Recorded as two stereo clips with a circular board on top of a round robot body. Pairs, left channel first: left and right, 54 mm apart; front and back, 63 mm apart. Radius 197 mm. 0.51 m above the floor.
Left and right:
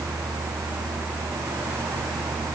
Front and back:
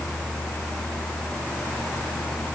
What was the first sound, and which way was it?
Only background noise.